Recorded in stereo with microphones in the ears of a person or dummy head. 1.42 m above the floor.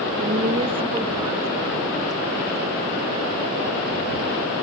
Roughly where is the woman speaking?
Right.